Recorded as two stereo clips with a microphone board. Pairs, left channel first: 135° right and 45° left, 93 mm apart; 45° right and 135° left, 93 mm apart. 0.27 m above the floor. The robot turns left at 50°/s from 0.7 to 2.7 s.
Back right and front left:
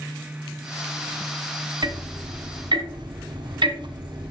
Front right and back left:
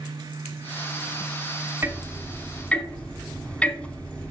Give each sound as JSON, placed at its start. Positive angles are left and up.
{"t": 1.8, "sound": "ticking", "azimuth_deg": 75, "distance_m": 0.9}